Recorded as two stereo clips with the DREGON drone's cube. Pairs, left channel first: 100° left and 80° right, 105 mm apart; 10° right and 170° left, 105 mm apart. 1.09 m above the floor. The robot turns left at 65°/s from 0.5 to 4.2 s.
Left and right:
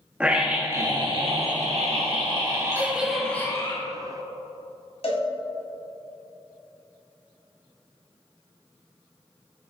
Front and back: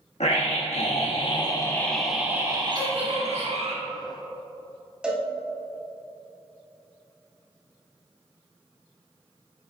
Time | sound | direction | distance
0.2 | a scream | straight ahead | 1.4 m
2.8 | a giggle | 145° right | 2.5 m
5.0 | a cowbell | 90° left | 2.0 m